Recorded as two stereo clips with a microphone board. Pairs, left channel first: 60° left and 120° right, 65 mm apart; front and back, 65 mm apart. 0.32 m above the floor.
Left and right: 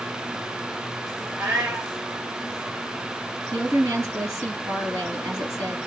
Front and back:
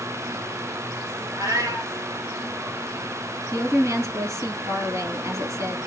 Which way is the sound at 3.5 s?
150° right.